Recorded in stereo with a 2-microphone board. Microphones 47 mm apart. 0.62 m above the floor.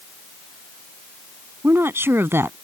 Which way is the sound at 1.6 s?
55° right (ahead or behind).